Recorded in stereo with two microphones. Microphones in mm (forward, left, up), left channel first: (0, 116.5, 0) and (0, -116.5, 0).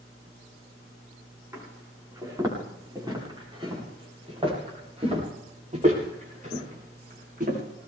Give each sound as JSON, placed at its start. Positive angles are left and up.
{"t": 1.5, "sound": "footsteps", "side_deg": -10, "distance_m": 8.5}